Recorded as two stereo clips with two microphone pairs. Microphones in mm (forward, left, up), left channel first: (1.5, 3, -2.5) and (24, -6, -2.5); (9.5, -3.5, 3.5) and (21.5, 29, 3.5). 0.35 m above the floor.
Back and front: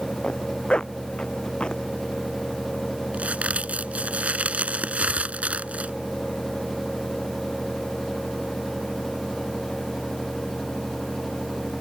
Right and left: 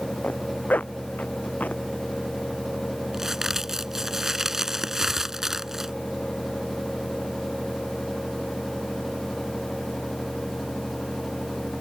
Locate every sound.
0.2 s a zipper: 150° right
3.1 s a crack: 5° right